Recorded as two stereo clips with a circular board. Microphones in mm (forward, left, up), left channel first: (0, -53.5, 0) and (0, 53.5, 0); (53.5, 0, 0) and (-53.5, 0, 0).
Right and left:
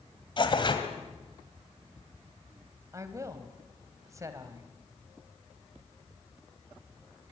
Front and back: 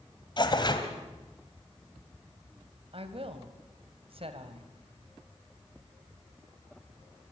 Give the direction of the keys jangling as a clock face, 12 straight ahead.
No keys jangling in this recording.